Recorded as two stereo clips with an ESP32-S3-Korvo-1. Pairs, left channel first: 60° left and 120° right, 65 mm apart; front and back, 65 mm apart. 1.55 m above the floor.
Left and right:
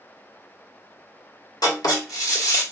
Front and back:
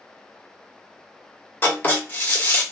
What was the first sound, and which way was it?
Writing, 60° left.